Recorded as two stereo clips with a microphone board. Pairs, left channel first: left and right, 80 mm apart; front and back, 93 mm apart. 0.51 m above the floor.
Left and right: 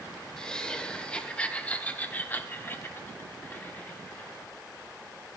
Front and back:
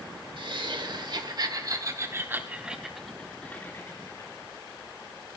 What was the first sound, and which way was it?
Laughter, 170° left.